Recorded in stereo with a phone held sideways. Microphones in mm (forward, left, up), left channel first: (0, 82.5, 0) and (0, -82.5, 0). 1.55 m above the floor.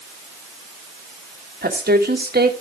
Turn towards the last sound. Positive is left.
turn(degrees=-75)  # may be behind; listen again after turning